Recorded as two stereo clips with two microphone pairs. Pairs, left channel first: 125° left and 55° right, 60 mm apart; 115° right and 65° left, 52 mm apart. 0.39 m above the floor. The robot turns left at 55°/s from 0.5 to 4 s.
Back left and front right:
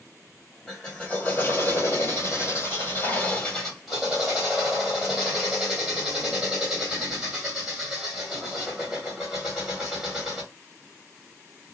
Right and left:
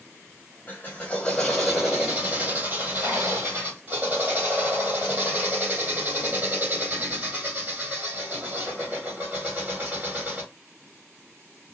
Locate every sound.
0.7 s a drill: 150° right, 1.9 m; by 10.5 s 30° left, 1.9 m